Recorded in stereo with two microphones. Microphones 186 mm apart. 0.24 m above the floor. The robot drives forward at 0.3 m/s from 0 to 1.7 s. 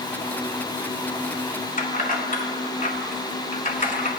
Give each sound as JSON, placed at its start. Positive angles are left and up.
{"t": 1.8, "sound": "keys jangling", "side_deg": 45, "distance_m": 1.5}